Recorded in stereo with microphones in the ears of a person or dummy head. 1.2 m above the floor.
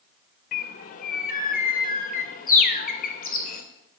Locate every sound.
0.5 s a bird: 40° left (ahead or behind), 0.7 m